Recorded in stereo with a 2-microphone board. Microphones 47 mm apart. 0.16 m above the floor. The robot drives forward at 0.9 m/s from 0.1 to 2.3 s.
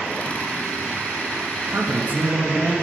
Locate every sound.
1.7 s a man speaking: 40° right (ahead or behind), 2.5 m; by 2.7 s 35° right (ahead or behind), 2.5 m